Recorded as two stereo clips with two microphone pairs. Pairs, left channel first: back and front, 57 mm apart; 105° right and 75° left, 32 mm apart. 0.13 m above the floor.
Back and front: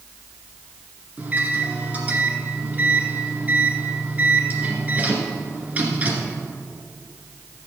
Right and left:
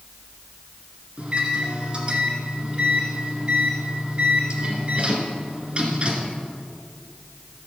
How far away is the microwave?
About 1.8 m.